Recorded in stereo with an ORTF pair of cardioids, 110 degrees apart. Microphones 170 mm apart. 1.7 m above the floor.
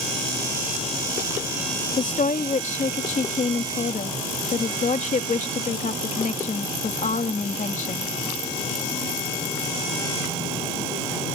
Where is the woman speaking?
50° left.